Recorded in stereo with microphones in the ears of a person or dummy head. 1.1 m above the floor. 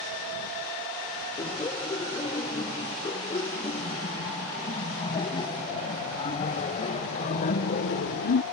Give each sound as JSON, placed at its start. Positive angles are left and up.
{"t": 1.4, "sound": "laughter", "side_deg": 25}